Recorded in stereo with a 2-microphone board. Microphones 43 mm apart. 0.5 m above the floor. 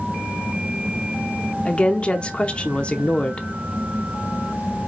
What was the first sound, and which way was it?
A woman speaking, 30° left (ahead or behind).